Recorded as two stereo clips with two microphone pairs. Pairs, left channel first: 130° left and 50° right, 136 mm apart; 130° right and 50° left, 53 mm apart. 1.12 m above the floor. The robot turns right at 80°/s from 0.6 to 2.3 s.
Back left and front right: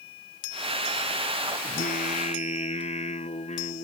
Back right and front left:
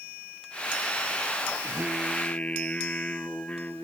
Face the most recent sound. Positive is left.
turn(degrees=165)